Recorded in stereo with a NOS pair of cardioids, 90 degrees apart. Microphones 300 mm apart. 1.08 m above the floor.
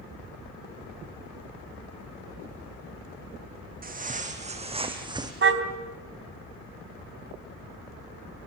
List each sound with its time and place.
3.8 s footsteps: 25° right, 4 m; by 5.3 s 10° right, 4 m
5.4 s a car horn: 40° right, 3 m